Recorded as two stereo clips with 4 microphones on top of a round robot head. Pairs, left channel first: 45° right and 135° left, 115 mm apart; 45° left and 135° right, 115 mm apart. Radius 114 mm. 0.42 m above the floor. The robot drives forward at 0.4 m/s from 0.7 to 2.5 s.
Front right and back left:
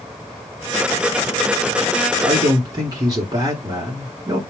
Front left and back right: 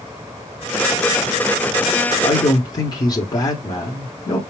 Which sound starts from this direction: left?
A man speaking, at 2.2 s.